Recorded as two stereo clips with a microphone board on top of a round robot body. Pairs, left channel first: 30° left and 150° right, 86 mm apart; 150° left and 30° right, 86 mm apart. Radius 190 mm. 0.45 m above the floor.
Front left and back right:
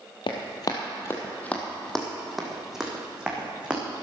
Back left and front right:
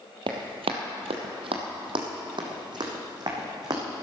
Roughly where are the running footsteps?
Ahead.